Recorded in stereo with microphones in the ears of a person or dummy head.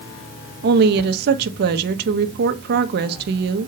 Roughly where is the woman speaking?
Right.